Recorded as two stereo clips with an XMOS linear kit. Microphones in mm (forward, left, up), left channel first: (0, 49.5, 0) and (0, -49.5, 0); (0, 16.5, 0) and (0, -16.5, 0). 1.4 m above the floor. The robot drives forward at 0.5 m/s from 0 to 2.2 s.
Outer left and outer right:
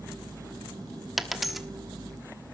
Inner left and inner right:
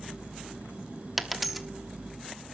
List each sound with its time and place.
1.2 s a dropped coin: 5° right (ahead or behind), 1.0 m; by 1.7 s centre (ahead or behind), 1.1 m